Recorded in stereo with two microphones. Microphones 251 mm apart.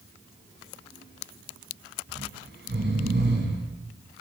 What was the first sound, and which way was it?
Snoring, 45° right (ahead or behind).